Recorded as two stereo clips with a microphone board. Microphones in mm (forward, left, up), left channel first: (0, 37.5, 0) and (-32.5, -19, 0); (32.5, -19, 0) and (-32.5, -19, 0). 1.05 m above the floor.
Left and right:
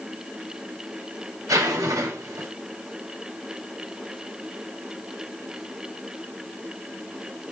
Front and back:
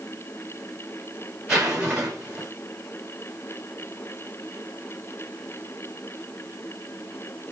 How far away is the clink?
I don't hear a clink.